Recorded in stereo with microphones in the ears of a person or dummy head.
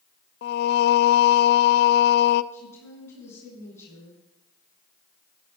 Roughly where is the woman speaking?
Centre.